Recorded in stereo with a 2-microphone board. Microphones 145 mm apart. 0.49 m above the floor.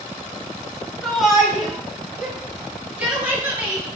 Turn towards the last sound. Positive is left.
turn(degrees=-15)  # may be behind; listen again after turning